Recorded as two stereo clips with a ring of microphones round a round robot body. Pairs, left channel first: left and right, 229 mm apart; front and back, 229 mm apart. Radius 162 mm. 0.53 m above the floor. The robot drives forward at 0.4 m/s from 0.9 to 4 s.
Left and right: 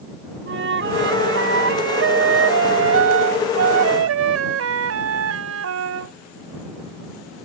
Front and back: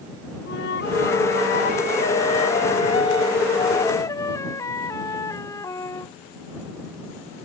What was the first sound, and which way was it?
A flute, 60° right.